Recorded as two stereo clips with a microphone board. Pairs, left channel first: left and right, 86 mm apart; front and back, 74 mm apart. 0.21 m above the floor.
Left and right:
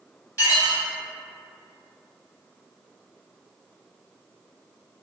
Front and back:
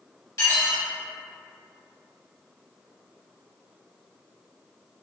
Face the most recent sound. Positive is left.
turn(degrees=40)